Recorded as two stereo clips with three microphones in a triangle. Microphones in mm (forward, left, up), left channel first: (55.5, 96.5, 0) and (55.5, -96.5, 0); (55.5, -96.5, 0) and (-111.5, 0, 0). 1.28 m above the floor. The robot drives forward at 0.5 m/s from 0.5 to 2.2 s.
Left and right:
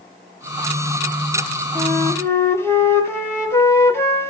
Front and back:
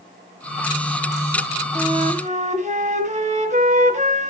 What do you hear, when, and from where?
1.8 s a flute: 150° left, 1.2 m; by 4.3 s 160° left, 1.4 m